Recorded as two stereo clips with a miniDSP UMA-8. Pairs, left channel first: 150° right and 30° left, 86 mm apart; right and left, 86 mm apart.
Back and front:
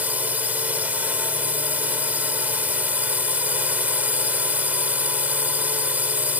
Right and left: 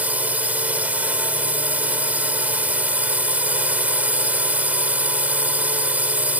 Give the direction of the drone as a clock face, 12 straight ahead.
10 o'clock.